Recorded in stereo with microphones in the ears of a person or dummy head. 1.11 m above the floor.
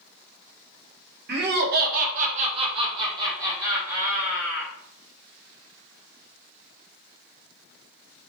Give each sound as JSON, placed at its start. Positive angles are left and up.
{"t": 1.3, "sound": "laughter", "side_deg": -40, "distance_m": 0.7}